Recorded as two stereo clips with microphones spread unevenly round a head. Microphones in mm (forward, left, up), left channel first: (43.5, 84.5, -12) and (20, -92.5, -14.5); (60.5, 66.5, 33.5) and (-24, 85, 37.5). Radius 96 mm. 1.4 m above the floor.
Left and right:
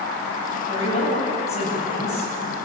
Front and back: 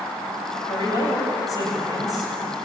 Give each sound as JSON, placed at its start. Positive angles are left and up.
{"t": 0.7, "sound": "a woman speaking", "azimuth_deg": 30, "distance_m": 9.5}